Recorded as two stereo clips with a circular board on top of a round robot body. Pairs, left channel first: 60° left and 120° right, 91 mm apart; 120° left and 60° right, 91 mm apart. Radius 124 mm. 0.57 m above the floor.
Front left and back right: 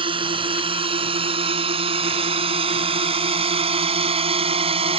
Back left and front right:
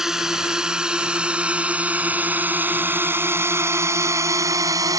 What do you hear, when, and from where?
0.0 s a drone: 145° right; by 5.0 s 110° right